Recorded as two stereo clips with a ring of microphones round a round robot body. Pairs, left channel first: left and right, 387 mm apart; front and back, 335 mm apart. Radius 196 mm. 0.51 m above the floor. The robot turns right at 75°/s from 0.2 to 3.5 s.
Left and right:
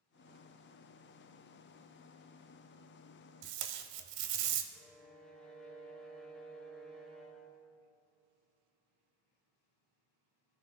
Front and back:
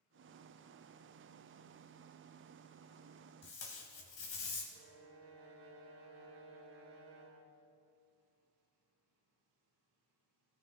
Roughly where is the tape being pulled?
Ahead right.